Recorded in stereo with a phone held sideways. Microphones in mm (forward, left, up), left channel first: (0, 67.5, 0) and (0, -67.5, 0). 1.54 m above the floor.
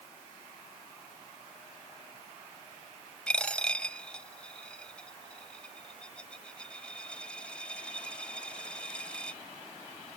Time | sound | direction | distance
3.3 | a dropped coin | 5° left (ahead or behind) | ?